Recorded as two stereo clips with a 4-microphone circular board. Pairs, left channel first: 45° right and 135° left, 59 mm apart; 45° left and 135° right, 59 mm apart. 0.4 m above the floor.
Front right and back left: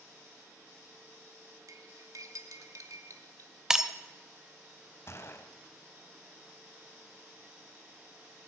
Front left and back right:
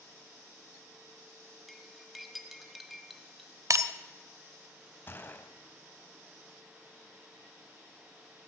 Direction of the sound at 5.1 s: 5° right.